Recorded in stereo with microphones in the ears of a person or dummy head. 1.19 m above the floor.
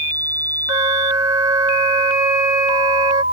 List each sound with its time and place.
0.7 s a flute: 25° right (ahead or behind)